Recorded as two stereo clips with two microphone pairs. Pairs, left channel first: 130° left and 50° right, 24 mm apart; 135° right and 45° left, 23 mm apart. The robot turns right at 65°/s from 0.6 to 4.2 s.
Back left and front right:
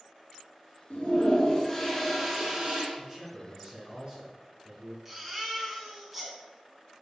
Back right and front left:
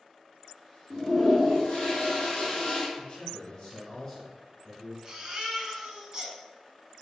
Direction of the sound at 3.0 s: 130° right.